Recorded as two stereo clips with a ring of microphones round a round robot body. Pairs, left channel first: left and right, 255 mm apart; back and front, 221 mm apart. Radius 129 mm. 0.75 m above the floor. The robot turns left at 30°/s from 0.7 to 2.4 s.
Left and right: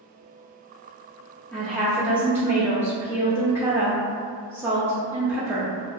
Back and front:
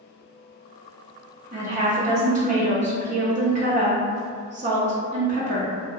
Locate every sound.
1.5 s a woman speaking: 10° left, 0.6 m; by 5.7 s 15° right, 0.6 m